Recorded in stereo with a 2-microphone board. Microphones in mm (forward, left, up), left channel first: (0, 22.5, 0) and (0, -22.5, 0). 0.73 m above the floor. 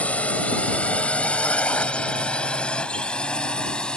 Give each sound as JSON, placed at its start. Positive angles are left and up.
{"t": 0.0, "sound": "a drone", "side_deg": 30}